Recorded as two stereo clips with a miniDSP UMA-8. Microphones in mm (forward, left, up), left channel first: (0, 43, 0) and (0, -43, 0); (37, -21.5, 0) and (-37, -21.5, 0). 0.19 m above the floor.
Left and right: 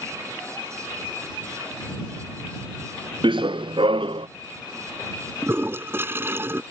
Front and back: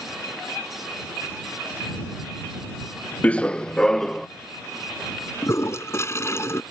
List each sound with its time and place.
3.2 s running footsteps: 70° right; by 4.3 s 85° right
5.4 s a toilet flushing: 35° right